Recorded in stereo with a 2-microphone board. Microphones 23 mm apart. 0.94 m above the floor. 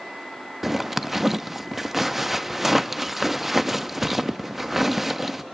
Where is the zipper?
10° right (ahead or behind), 0.5 m.